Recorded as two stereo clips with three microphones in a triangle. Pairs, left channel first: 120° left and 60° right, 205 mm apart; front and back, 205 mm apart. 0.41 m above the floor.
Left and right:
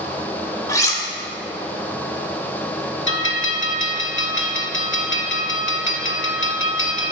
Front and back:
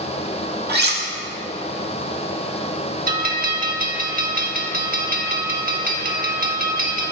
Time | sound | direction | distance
0.7 | cutlery clinking | 165° right | 0.8 m
3.1 | a bell | 135° left | 0.6 m